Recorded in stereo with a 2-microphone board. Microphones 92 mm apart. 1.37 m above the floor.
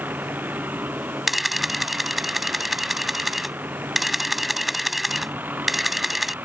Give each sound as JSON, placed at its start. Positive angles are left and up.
{"t": 0.0, "sound": "a vehicle", "side_deg": -20}
{"t": 1.3, "sound": "a camera shutter", "side_deg": 0}